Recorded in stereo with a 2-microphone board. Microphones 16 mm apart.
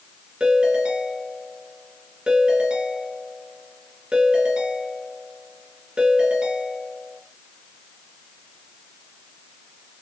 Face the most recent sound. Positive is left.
turn(degrees=-75)  # may be behind; listen again after turning